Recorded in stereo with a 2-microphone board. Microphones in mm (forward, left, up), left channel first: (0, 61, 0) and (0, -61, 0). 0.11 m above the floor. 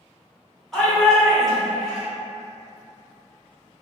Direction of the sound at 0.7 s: Centre (ahead or behind).